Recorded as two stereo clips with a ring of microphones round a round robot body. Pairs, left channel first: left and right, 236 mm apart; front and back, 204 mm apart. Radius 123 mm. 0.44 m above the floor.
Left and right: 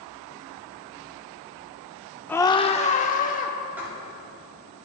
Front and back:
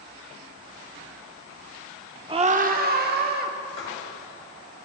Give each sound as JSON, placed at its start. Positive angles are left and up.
{"t": 2.3, "sound": "a scream", "azimuth_deg": 165, "distance_m": 0.8}
{"t": 3.8, "sound": "writing", "azimuth_deg": -5, "distance_m": 5.5}